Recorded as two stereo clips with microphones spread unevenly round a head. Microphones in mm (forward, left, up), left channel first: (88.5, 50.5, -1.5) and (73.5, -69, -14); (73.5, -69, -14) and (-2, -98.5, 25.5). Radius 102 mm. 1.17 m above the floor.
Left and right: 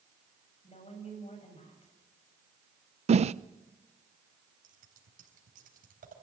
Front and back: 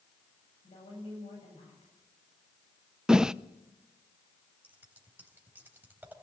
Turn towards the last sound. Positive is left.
turn(degrees=-95)